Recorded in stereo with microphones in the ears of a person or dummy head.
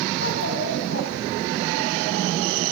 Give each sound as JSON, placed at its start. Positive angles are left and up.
{"t": 0.2, "sound": "a child speaking", "side_deg": 60, "distance_m": 5.5}